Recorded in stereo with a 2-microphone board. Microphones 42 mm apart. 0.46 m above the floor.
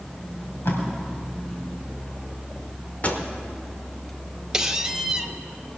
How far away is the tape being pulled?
About 3 m.